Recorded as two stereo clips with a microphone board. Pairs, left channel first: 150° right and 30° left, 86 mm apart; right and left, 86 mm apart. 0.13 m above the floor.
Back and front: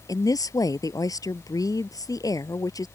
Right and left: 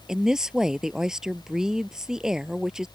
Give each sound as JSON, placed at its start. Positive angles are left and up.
{"t": 0.1, "sound": "a woman speaking", "azimuth_deg": 175}